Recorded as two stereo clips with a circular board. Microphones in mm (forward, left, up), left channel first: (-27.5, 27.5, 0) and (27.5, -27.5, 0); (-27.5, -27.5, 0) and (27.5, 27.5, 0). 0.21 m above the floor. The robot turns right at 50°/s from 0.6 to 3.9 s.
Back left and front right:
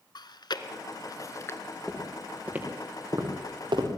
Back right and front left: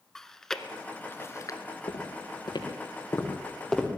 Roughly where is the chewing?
Behind left.